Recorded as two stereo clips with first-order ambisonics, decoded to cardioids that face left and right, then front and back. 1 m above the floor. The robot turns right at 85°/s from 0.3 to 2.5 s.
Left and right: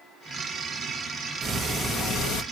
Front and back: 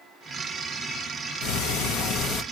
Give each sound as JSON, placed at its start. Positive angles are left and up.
{"t": 1.4, "sound": "ticking", "azimuth_deg": -25, "distance_m": 1.0}